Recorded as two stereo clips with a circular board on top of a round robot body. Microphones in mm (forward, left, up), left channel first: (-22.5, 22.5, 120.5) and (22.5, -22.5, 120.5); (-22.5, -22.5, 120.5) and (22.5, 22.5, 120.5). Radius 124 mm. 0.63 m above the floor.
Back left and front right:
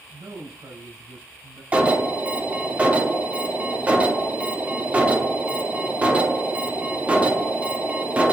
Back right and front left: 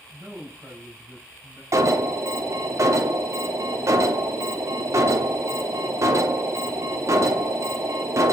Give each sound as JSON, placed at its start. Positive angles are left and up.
{"t": 0.1, "sound": "a man speaking", "azimuth_deg": -40, "distance_m": 8.0}
{"t": 1.7, "sound": "an alarm", "azimuth_deg": 20, "distance_m": 3.0}